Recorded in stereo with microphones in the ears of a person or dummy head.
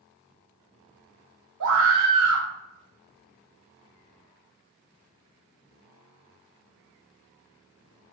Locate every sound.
1.6 s a scream: 65° right (ahead or behind), 1.6 m